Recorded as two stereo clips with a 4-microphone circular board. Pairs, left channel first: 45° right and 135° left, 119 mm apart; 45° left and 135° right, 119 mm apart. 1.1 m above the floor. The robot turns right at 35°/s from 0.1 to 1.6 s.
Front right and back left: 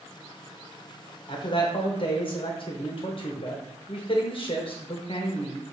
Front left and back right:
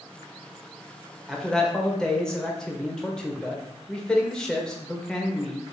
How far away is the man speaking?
About 0.8 m.